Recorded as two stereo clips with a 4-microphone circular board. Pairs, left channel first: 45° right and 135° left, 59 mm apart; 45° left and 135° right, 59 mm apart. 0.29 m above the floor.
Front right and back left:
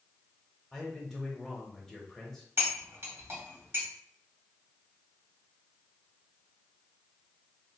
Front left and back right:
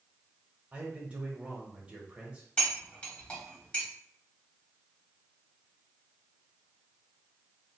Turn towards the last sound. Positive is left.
turn(degrees=110)